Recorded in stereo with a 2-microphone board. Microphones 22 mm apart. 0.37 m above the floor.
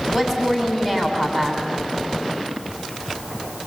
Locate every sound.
0.1 s a woman speaking: 15° right (ahead or behind), 3 m